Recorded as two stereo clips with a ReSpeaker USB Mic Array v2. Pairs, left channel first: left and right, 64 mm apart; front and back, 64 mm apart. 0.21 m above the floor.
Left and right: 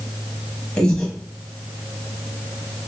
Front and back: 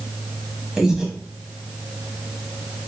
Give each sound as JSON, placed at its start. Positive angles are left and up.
{"t": 0.8, "sound": "breathing", "azimuth_deg": 125, "distance_m": 1.0}